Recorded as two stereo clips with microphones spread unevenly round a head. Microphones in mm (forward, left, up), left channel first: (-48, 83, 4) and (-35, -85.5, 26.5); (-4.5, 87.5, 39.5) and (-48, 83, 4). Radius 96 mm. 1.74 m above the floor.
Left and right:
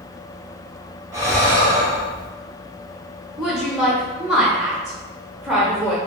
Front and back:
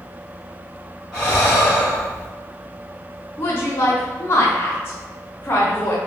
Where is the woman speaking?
Straight ahead, 0.5 m.